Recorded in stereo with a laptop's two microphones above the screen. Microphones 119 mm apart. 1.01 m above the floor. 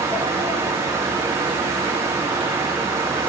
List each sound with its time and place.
0.0 s a fan: 25° right (ahead or behind), 3.5 m